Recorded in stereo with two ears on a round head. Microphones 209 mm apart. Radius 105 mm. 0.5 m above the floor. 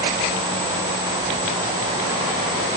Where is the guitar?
No guitar in this recording.